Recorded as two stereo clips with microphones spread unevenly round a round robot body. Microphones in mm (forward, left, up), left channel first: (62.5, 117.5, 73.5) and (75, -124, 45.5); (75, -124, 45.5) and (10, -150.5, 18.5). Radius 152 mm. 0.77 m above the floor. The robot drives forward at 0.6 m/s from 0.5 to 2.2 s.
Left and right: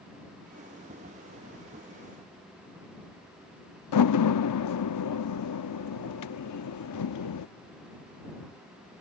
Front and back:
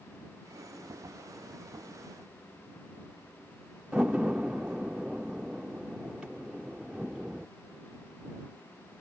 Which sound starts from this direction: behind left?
A door slam, at 3.9 s.